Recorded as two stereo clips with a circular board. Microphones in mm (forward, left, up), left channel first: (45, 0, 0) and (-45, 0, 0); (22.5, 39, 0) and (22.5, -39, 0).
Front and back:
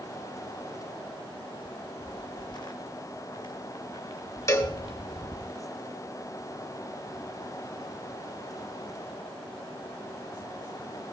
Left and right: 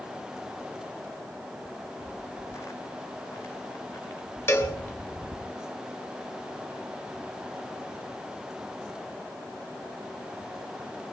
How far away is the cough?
I don't hear a cough.